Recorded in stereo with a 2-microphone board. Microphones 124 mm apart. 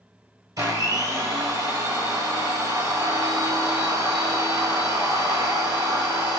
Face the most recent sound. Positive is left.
turn(degrees=-25)  # may be behind; listen again after turning